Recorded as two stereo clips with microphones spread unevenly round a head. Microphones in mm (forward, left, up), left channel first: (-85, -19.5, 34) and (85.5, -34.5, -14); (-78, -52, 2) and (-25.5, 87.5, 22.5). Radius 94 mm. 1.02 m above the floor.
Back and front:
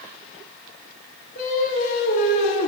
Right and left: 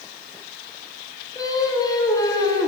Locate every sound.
1.4 s singing: straight behind, 1.7 m